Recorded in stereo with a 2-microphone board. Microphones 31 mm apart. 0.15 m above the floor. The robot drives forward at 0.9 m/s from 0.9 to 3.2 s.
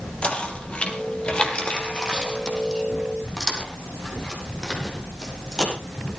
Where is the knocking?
35° left (ahead or behind), 3 m; by 5.7 s 20° left (ahead or behind), 5 m.